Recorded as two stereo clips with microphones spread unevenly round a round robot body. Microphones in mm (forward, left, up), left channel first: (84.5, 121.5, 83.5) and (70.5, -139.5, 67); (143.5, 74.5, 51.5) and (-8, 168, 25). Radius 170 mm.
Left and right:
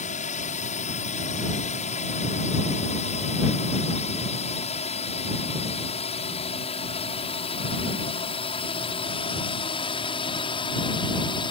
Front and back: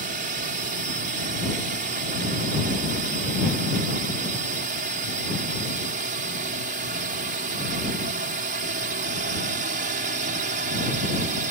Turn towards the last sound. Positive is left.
turn(degrees=160)